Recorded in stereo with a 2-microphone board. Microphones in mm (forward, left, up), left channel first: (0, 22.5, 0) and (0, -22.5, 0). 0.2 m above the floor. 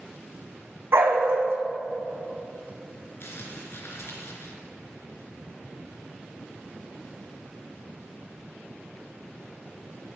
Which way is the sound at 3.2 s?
65° left (ahead or behind).